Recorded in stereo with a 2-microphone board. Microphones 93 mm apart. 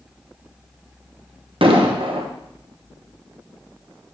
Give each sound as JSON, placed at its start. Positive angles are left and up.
{"t": 1.6, "sound": "an explosion", "side_deg": -70, "distance_m": 1.0}